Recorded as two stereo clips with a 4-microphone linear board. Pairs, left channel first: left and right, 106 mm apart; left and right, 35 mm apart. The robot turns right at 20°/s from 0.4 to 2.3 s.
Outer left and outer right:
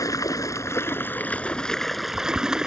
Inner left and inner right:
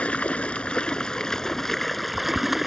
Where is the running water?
145° left; by 2.7 s 175° right.